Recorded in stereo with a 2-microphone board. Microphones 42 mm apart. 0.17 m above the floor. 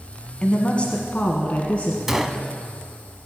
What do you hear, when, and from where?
0.4 s a woman speaking: 25° left (ahead or behind), 1.1 m; by 2.0 s 30° left (ahead or behind), 1.6 m
2.1 s a gunshot: 5° right (ahead or behind), 0.7 m